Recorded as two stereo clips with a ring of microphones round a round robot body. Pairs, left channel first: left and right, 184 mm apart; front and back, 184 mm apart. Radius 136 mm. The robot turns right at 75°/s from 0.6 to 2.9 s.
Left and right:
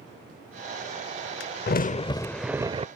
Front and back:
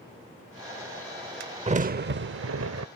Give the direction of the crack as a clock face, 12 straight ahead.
8 o'clock.